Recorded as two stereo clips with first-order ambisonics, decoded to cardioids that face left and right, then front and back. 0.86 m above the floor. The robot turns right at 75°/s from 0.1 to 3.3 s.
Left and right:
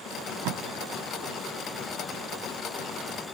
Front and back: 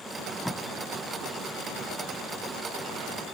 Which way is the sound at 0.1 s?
110° right.